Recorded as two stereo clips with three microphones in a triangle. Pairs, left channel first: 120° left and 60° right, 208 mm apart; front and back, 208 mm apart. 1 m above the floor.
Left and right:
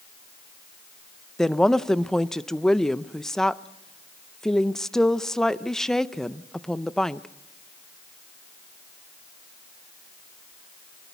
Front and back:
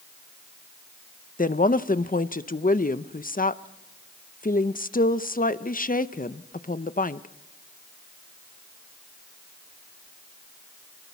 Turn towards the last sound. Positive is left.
turn(degrees=35)